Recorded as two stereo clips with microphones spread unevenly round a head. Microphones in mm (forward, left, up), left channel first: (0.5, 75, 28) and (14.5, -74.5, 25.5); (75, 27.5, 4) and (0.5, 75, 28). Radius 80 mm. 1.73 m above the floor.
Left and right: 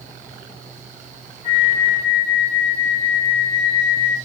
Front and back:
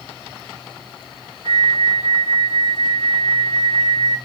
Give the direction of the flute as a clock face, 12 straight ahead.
7 o'clock.